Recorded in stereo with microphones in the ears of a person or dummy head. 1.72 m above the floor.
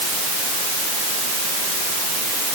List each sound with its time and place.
Only background noise.